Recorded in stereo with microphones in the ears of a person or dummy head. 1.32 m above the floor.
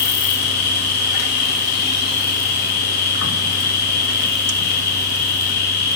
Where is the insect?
45° left (ahead or behind), 0.9 m.